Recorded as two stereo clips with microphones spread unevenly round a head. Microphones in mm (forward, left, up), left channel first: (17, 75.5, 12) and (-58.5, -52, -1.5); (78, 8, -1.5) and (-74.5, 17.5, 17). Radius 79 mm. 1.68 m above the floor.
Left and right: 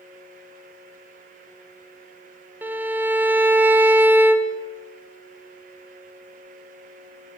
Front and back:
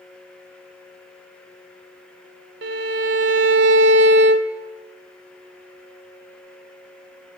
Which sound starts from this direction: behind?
A violin, at 2.6 s.